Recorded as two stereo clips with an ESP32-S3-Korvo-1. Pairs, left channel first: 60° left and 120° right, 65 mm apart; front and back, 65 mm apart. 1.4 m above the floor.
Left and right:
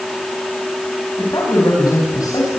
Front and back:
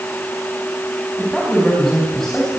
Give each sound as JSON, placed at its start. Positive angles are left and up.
{"t": 1.2, "sound": "a man speaking", "azimuth_deg": 85, "distance_m": 9.0}